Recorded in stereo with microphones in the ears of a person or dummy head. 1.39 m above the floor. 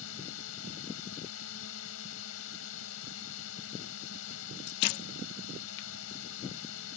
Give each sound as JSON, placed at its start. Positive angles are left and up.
{"t": 0.0, "sound": "a drone", "side_deg": 75}